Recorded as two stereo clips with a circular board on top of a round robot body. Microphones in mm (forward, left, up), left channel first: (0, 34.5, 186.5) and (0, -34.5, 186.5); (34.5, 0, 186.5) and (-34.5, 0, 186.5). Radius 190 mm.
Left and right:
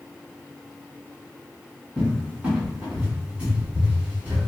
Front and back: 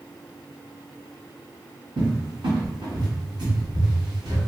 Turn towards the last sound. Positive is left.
turn(degrees=-165)